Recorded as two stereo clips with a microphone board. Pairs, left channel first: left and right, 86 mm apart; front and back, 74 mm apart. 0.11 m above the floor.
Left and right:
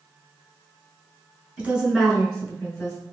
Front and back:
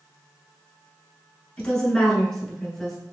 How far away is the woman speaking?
About 1.1 m.